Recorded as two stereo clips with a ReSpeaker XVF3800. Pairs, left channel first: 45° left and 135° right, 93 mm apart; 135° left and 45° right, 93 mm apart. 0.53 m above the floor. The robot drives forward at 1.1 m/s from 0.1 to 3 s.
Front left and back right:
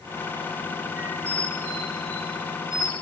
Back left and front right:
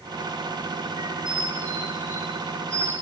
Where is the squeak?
70° right, 3.5 m; by 2.9 s 105° right, 3.5 m.